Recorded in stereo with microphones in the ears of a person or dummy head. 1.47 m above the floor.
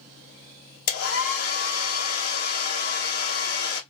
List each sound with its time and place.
0.9 s a hair dryer: 55° left (ahead or behind), 0.9 m